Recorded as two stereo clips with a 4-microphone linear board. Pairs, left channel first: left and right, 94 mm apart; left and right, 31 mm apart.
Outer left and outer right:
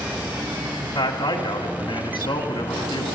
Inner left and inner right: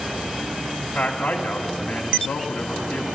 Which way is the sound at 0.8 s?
65° left (ahead or behind).